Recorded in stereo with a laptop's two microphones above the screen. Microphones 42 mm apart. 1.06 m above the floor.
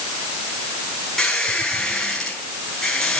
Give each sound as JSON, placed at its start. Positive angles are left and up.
{"t": 1.2, "sound": "a squeak", "side_deg": 10, "distance_m": 3.5}